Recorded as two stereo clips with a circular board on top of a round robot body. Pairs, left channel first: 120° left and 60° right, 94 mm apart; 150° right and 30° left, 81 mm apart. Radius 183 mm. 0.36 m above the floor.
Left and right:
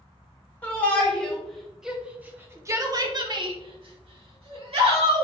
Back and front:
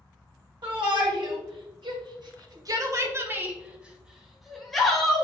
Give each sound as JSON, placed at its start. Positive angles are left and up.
{"t": 0.6, "sound": "a shout", "azimuth_deg": 50, "distance_m": 2.5}